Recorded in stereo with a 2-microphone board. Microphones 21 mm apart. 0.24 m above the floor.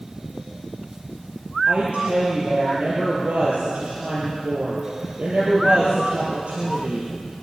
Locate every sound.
1.7 s a woman speaking: 60° right (ahead or behind), 5.5 m